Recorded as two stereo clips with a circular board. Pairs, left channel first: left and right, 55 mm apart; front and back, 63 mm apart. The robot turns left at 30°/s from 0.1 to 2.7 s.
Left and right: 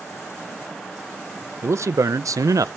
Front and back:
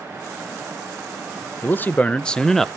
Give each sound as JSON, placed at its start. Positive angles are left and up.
{"t": 1.6, "sound": "a man speaking", "azimuth_deg": -55, "distance_m": 0.5}